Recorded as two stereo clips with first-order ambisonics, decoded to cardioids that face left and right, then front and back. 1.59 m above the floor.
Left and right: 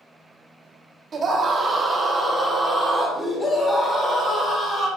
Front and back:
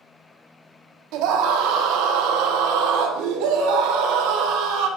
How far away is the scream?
About 1.4 m.